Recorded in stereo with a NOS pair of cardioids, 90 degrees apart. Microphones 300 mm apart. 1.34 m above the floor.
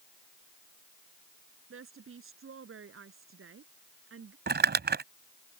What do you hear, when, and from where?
1.7 s a woman speaking: 45° right
4.5 s crumpling: 35° right